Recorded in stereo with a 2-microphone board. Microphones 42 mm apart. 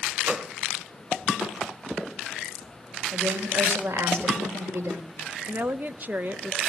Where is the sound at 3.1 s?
65° right (ahead or behind), 3.5 m.